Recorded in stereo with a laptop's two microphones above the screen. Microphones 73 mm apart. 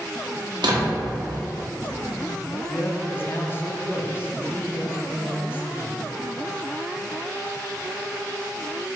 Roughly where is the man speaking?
Left.